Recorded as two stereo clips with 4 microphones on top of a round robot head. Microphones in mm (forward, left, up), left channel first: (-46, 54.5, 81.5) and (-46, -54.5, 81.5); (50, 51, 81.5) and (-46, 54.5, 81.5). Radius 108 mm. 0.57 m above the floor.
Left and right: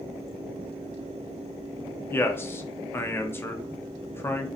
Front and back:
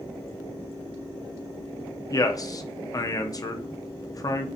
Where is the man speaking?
30° left, 0.8 m.